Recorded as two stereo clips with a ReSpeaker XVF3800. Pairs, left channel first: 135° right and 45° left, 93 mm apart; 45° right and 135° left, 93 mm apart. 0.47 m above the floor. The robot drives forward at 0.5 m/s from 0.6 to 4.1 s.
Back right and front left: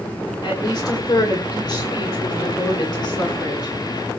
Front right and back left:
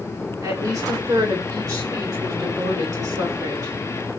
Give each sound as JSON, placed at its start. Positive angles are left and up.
{"t": 0.4, "sound": "a woman speaking", "azimuth_deg": -175, "distance_m": 5.0}